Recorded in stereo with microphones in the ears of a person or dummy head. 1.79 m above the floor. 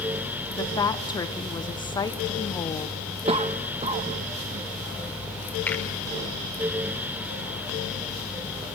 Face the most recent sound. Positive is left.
turn(degrees=5)  # may be behind; listen again after turning